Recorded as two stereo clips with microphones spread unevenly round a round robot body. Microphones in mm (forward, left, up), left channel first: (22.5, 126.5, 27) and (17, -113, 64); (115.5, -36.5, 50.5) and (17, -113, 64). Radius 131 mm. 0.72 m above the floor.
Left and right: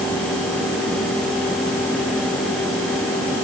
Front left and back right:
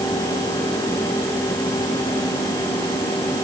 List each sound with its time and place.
Only background noise.